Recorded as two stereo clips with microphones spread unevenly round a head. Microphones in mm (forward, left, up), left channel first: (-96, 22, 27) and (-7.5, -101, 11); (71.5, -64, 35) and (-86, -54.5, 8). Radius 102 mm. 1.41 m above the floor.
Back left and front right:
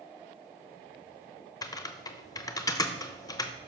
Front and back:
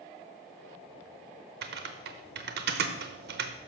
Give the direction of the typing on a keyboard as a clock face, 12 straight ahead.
6 o'clock.